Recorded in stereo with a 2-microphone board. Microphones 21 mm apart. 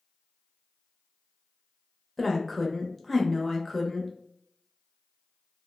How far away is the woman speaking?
About 0.9 m.